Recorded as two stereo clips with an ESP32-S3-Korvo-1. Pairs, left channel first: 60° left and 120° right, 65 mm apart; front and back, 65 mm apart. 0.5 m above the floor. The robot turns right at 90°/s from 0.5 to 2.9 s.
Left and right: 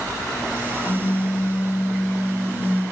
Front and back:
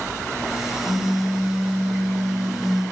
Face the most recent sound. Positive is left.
turn(degrees=-80)